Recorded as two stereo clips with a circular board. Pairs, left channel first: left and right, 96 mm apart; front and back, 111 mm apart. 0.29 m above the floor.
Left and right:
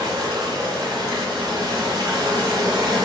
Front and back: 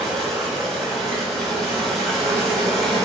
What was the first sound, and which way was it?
Running water, 85° right.